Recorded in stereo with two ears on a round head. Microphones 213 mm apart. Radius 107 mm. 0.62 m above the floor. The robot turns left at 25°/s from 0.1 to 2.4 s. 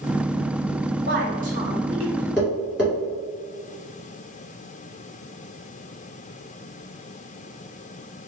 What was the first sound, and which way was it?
A woman speaking, 130° right.